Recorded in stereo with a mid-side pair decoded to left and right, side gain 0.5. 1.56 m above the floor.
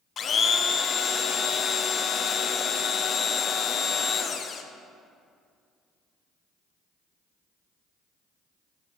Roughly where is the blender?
Ahead left.